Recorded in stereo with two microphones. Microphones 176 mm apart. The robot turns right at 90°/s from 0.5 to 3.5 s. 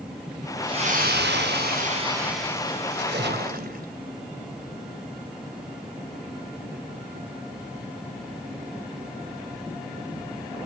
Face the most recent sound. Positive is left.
turn(degrees=-55)